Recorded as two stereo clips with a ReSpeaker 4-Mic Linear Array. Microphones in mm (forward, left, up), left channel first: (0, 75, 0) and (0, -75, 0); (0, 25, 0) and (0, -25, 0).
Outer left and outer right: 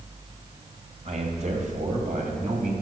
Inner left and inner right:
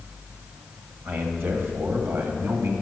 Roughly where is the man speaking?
Right.